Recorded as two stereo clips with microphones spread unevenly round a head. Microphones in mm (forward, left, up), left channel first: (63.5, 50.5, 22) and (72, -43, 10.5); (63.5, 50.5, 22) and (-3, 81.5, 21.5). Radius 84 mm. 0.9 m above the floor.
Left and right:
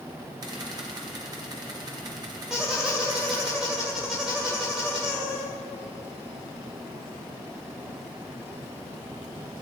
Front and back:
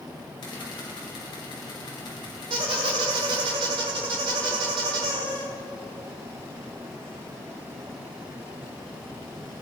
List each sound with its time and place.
0.4 s a camera shutter: 45° right, 3 m
2.5 s a squeak: 175° right, 1.6 m